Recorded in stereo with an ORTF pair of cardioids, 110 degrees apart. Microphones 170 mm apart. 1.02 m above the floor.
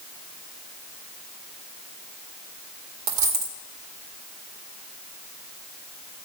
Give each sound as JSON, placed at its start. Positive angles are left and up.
{"t": 3.1, "sound": "a dropped coin", "azimuth_deg": -70, "distance_m": 1.9}